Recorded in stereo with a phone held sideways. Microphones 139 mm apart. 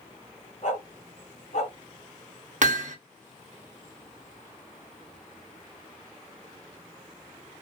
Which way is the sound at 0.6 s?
55° left (ahead or behind).